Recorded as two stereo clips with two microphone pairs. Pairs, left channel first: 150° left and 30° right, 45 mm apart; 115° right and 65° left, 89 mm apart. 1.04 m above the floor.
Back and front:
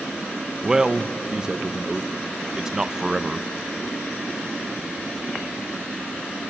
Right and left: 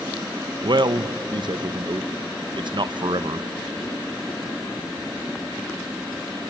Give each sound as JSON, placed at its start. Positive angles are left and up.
{"t": 0.6, "sound": "a man speaking", "azimuth_deg": 40, "distance_m": 0.6}